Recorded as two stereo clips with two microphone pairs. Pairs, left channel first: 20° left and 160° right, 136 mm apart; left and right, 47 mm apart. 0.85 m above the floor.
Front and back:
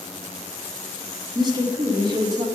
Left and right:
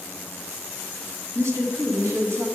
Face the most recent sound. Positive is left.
turn(degrees=-100)